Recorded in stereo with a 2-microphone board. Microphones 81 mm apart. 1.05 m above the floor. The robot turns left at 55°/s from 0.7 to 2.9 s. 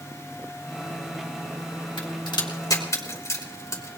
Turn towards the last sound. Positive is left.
turn(degrees=40)  # may be behind; listen again after turning